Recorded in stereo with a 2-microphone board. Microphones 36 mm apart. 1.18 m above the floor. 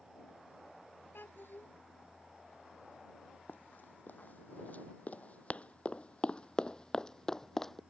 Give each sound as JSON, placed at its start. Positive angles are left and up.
{"t": 1.1, "sound": "a child speaking", "side_deg": 85}
{"t": 3.5, "sound": "running footsteps", "side_deg": 60}